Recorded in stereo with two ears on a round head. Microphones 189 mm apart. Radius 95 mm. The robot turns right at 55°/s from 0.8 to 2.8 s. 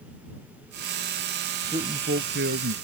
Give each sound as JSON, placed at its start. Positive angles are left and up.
{"t": 1.6, "sound": "a man speaking", "azimuth_deg": -165}